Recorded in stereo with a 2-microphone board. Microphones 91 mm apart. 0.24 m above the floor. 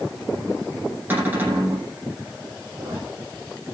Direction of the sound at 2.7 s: 25° right (ahead or behind).